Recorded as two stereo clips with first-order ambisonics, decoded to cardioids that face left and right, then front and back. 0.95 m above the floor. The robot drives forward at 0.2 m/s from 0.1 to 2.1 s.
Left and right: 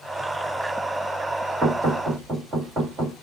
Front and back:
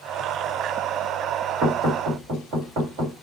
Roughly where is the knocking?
Behind right.